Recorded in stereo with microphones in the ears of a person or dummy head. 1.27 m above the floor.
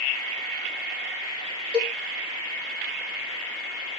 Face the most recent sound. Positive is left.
turn(degrees=15)  # may be behind; listen again after turning